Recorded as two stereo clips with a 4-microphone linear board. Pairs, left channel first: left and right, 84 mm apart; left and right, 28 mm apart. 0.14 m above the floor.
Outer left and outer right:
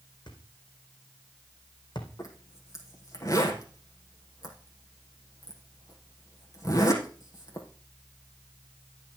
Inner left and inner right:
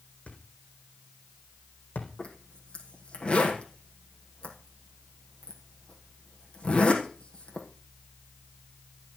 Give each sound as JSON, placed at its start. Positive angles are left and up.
{"t": 0.3, "sound": "a thud", "side_deg": 60, "distance_m": 4.0}
{"t": 2.2, "sound": "a zipper", "side_deg": 40, "distance_m": 4.0}